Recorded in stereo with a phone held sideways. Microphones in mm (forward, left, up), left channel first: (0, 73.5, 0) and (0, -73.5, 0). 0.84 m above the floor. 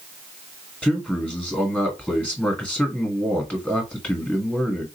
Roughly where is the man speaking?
Centre.